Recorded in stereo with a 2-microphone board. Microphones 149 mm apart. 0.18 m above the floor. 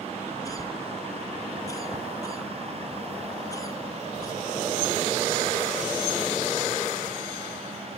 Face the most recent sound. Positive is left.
turn(degrees=25)  # may be behind; listen again after turning